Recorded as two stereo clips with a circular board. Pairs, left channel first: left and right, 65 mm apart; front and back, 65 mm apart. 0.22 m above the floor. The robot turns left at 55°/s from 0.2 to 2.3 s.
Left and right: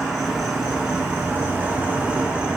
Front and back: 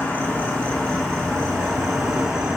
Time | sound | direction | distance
0.0 | an insect | straight ahead | 1.2 m